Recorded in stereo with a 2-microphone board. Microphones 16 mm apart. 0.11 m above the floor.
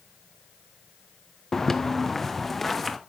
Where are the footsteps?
20° left (ahead or behind), 0.9 m; by 3.0 s centre (ahead or behind), 1.9 m.